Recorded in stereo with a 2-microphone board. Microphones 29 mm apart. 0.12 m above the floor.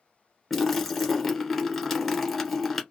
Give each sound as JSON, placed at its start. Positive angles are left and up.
{"t": 0.5, "sound": "a splash", "side_deg": 0, "distance_m": 1.3}